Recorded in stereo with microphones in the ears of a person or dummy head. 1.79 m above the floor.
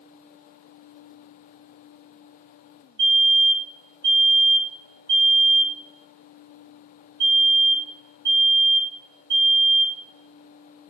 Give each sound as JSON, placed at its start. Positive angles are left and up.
{"t": 3.0, "sound": "a fire alarm", "side_deg": -45, "distance_m": 6.0}